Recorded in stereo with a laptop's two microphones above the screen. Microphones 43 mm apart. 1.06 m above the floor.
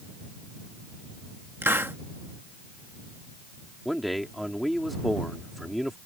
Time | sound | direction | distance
1.6 | a hiss | 65° right (ahead or behind) | ?
3.9 | a man speaking | centre (ahead or behind) | ?